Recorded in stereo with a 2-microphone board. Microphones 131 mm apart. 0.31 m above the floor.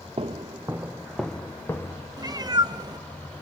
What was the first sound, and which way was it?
Footsteps, 45° right (ahead or behind).